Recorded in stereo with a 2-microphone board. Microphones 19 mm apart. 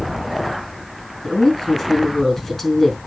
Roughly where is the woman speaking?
Centre.